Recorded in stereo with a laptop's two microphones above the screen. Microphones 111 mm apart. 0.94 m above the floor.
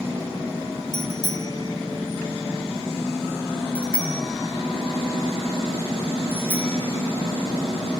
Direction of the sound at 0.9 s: 45° left (ahead or behind).